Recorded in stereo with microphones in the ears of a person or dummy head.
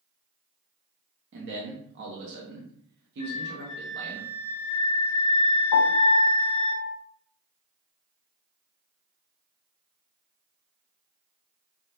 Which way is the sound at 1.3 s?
60° right (ahead or behind).